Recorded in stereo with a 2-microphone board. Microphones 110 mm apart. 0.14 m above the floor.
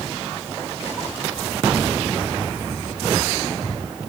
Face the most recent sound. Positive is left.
No sound to turn to.